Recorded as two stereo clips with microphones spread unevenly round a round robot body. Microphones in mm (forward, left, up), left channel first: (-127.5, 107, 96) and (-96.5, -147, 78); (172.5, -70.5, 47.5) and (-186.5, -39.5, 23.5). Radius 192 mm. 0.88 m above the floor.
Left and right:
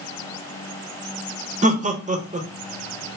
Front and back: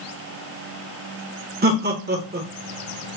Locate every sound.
1.6 s laughter: 135° right, 1.1 m